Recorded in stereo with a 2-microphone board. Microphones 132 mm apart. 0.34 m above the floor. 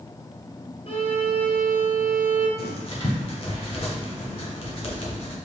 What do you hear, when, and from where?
0.9 s a violin: 45° left (ahead or behind), 1.1 m
2.6 s writing: 45° left (ahead or behind), 0.9 m